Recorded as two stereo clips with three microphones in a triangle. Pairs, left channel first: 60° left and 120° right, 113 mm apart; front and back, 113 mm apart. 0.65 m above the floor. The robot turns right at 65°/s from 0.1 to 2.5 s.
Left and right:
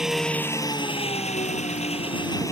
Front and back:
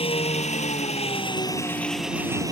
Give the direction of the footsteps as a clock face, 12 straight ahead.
I don't hear footsteps.